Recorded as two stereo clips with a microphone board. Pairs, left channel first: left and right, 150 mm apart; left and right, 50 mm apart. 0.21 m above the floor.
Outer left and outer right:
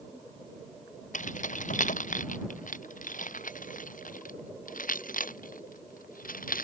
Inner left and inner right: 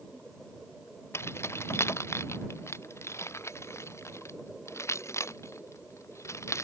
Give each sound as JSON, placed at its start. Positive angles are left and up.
{"t": 1.1, "sound": "keys jangling", "side_deg": 55}